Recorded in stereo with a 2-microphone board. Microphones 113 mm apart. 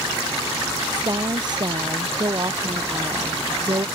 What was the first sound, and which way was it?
A woman speaking, 40° right (ahead or behind).